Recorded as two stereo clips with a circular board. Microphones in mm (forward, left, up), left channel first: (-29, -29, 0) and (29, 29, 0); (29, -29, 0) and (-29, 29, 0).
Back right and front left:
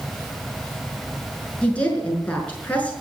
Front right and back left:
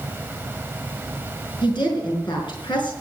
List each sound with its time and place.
1.6 s a woman speaking: 65° right, 5.5 m